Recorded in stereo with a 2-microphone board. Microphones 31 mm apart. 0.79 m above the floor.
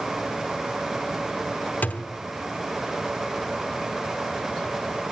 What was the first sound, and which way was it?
A thud, 65° left (ahead or behind).